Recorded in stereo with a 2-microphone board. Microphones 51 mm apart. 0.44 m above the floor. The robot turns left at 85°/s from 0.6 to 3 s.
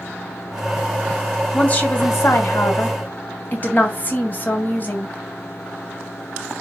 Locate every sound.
1.5 s a woman speaking: 165° left, 2.5 m; by 5.2 s 40° left, 2.5 m